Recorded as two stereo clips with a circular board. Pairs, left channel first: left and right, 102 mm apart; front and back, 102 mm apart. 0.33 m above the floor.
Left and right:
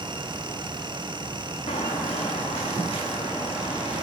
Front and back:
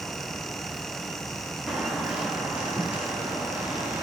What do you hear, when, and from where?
1.7 s footsteps: 95° left, 1.7 m; by 4.0 s 105° left, 4.5 m